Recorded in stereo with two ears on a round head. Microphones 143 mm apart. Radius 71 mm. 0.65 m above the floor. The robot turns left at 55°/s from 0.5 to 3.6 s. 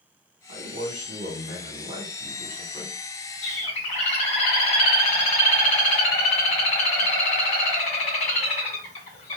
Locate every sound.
0.5 s a man speaking: 55° right, 2 m; by 3.0 s 170° left, 2 m
3.4 s a bird: 50° left (ahead or behind), 1.5 m; by 9.4 s 45° left (ahead or behind), 1.5 m